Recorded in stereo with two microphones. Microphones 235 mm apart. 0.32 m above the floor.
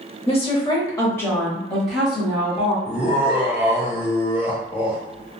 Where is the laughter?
30° left (ahead or behind), 1.0 m.